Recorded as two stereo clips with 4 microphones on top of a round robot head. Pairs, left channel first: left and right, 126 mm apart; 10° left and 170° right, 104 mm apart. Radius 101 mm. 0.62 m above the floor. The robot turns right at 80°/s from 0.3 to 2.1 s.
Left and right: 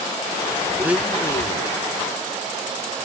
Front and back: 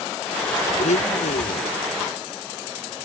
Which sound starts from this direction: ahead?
A blender, at 0.8 s.